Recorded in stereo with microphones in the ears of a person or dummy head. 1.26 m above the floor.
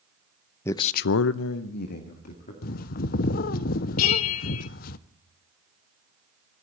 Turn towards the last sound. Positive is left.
turn(degrees=75)  # may be behind; listen again after turning